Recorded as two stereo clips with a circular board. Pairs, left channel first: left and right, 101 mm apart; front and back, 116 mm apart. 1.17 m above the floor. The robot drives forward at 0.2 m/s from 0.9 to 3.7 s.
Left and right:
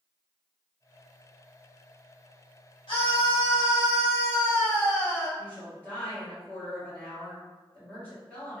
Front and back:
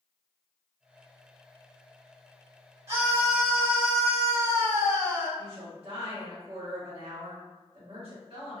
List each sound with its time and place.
2.9 s a scream: 135° left, 1.0 m; by 5.3 s 140° left, 1.1 m
5.4 s a woman speaking: 165° left, 1.2 m